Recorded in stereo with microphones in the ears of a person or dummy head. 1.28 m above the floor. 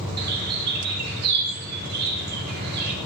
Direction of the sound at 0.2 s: 50° right (ahead or behind).